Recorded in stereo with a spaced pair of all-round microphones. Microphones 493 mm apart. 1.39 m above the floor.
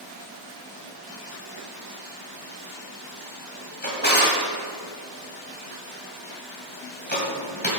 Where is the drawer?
20° left (ahead or behind), 1.7 m.